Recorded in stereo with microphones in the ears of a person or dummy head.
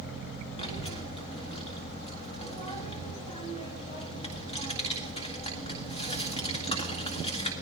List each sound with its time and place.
0.6 s a child speaking: 25° left (ahead or behind), 1.9 m